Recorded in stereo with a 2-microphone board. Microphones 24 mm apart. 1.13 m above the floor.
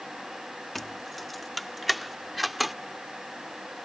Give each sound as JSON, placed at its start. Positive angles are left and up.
{"t": 0.8, "sound": "keys jangling", "side_deg": 10}